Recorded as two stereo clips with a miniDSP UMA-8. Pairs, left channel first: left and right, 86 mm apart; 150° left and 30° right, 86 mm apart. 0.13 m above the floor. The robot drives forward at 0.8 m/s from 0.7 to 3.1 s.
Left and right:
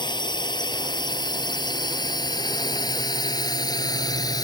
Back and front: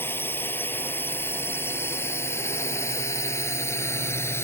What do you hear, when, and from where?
0.0 s a drone: 90° left; by 4.5 s 100° left